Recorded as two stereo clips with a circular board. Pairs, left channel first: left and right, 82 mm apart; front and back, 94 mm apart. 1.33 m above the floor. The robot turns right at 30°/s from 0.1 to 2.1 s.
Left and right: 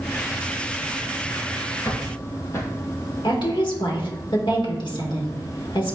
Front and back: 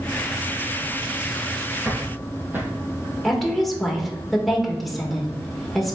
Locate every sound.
1.9 s footsteps: 115° left, 1.8 m; by 2.7 s 125° left, 1.8 m
3.2 s a woman speaking: 90° left, 1.7 m